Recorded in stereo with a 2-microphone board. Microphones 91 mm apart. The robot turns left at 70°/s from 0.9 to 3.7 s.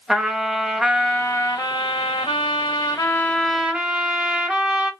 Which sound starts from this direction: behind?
A trumpet, at 0.1 s.